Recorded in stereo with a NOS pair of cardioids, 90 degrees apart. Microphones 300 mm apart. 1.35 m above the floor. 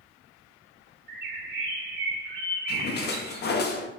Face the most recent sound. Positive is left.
turn(degrees=35)